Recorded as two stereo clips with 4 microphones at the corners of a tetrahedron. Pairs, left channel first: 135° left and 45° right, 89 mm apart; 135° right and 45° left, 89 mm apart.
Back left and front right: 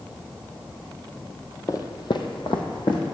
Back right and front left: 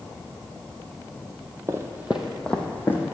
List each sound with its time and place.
1.7 s footsteps: 90° left, 0.9 m; by 3.1 s 165° left, 1.5 m